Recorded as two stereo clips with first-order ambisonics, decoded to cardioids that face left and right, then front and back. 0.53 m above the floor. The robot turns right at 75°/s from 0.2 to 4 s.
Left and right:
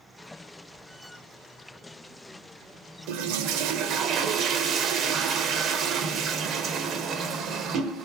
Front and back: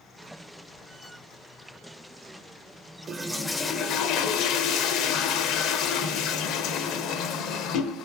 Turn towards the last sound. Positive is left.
turn(degrees=-40)